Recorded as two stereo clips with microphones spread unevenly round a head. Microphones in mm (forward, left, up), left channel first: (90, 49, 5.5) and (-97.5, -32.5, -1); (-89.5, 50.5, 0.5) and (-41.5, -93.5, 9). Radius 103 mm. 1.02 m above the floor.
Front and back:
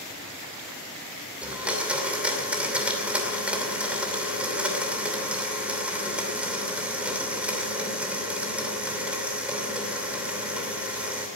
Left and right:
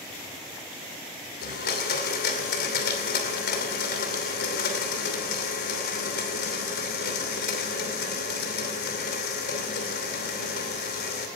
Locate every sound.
1.4 s a blender: 120° left, 2.5 m